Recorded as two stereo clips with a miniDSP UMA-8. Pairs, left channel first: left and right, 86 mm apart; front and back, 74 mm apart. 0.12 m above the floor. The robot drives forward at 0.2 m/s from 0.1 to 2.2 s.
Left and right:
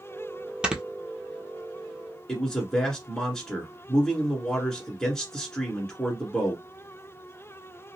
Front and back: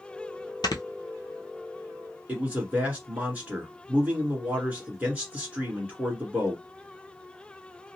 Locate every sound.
0.6 s snoring: 10° right, 0.6 m
2.3 s a man speaking: 165° left, 1.3 m